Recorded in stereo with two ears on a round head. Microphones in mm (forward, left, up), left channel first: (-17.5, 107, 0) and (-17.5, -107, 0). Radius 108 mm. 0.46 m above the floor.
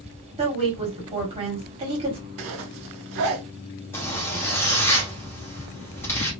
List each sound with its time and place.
0.4 s a woman speaking: 25° right (ahead or behind), 1.4 m
2.4 s a zipper: 65° right (ahead or behind), 0.7 m
3.9 s a zipper: 10° left (ahead or behind), 1.0 m